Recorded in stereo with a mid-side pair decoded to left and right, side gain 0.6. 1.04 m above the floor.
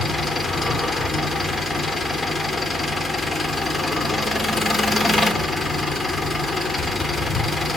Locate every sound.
0.0 s an engine running: 15° left, 3.5 m